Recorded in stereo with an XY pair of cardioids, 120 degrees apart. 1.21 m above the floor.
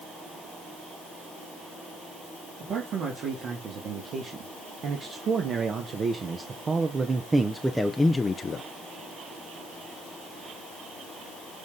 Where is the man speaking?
60° right, 3 m; by 8.7 s 55° left, 0.7 m.